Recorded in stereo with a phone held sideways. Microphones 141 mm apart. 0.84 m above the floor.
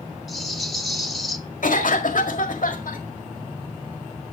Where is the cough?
70° left (ahead or behind), 1.7 m.